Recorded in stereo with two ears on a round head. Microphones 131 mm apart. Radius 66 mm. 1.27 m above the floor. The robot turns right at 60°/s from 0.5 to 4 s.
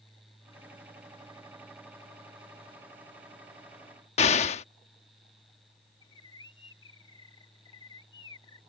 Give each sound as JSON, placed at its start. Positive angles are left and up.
{"t": 4.2, "sound": "an explosion", "side_deg": 45}
{"t": 6.0, "sound": "a bird", "side_deg": 30}